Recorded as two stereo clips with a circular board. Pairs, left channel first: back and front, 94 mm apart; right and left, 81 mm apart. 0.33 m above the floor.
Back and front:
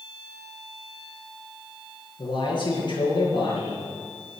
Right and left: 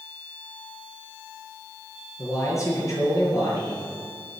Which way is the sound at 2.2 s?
140° right.